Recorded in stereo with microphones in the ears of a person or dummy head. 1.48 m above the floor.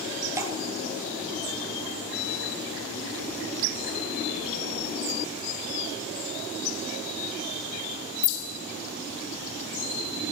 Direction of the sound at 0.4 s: 15° right (ahead or behind).